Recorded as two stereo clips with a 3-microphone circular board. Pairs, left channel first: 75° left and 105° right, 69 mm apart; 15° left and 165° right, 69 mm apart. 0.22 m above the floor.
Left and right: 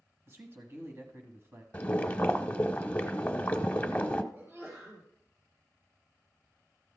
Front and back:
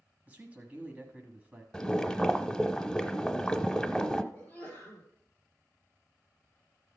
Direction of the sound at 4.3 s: 50° right.